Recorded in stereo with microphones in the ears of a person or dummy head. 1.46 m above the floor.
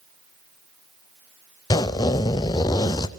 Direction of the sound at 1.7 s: 20° left (ahead or behind).